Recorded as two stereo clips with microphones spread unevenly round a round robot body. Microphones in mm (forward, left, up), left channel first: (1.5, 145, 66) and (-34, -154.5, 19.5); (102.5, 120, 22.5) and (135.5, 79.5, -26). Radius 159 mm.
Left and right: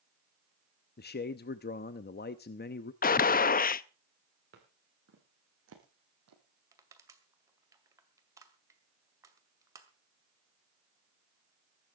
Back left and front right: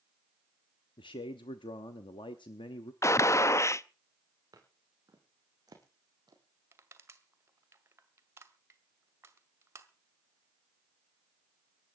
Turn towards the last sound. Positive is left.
turn(degrees=-15)